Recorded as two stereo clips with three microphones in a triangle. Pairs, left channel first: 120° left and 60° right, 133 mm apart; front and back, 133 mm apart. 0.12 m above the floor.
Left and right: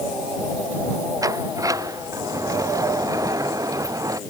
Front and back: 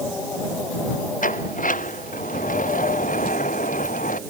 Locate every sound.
1.2 s a sliding door: 5° left